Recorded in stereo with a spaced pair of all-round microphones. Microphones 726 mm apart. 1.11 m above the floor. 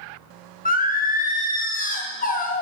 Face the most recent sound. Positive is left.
turn(degrees=15)  # may be behind; listen again after turning